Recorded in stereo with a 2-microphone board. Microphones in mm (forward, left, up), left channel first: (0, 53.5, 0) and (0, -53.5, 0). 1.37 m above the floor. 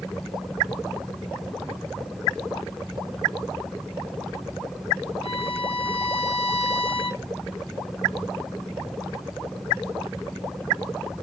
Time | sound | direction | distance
5.2 | a violin | 60° left (ahead or behind) | 2.5 m